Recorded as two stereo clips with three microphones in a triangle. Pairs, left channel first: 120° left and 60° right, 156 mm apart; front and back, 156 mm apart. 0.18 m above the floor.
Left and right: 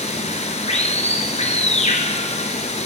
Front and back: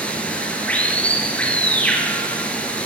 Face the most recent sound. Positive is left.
turn(degrees=80)